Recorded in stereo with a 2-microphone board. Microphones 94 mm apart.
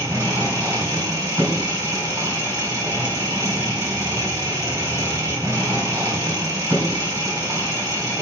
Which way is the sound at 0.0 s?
30° right (ahead or behind).